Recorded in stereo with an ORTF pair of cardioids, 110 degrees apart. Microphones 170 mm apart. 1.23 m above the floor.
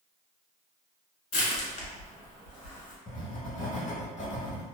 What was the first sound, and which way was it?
Crushing, 50° left.